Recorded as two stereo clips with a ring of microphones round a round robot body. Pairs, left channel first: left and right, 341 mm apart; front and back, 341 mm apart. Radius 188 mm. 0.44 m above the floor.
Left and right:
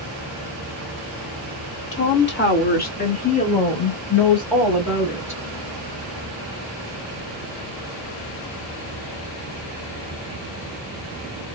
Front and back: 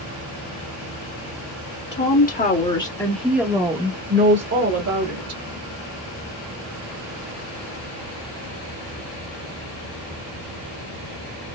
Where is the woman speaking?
45° left, 1.9 m; by 5.4 s 170° right, 2 m.